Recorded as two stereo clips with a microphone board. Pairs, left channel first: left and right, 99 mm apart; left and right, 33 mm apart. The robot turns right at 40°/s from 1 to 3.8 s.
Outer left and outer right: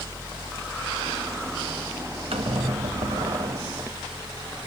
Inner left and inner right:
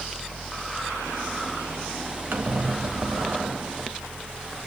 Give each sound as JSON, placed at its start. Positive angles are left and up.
{"t": 2.3, "sound": "a squeak", "azimuth_deg": -105, "distance_m": 0.8}